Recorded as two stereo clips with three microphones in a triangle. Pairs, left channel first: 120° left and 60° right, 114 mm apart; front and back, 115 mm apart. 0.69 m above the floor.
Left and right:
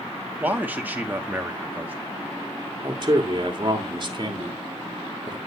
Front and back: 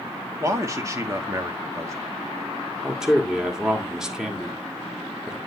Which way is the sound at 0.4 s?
130° right.